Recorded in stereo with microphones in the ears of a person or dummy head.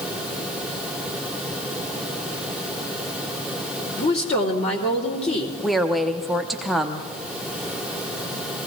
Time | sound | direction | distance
4.0 | a woman speaking | 35° left (ahead or behind) | 2.5 m
5.6 | a woman speaking | 5° left (ahead or behind) | 0.7 m